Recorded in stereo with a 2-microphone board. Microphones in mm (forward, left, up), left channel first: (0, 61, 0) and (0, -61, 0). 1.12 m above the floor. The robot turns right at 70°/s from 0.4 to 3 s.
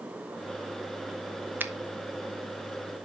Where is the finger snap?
15° right (ahead or behind), 0.6 m; by 1.7 s 25° right (ahead or behind), 0.6 m.